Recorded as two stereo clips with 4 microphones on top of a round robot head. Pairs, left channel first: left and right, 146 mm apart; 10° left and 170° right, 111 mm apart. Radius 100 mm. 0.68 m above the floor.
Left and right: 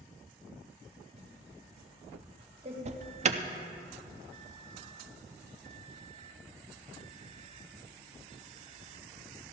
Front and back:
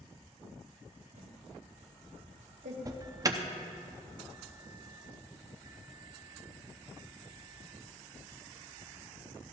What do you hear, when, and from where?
1.1 s typing on a keyboard: 145° right, 2 m
2.9 s an alarm: 115° right, 0.6 m